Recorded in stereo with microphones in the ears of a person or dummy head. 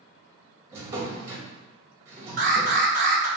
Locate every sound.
0.7 s a drawer: 20° right (ahead or behind), 1.1 m
2.4 s an alarm: 40° right (ahead or behind), 1.1 m